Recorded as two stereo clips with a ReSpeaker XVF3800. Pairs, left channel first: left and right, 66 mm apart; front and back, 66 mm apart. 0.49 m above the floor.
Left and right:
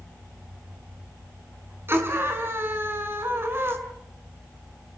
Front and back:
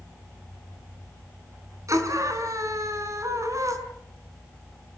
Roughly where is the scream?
Behind right.